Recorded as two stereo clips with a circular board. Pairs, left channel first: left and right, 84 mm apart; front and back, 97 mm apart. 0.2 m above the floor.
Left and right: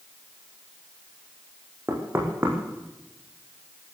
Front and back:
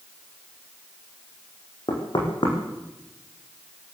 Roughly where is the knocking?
Ahead right.